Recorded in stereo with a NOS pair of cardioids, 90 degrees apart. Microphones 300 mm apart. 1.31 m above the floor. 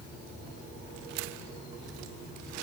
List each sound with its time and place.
Only background noise.